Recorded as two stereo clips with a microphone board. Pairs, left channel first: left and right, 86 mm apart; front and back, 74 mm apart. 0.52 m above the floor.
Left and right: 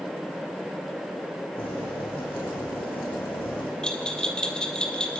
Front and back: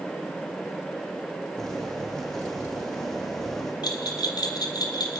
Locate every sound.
1.6 s boiling: 85° left, 8 m
3.8 s a bell: 10° left, 2.5 m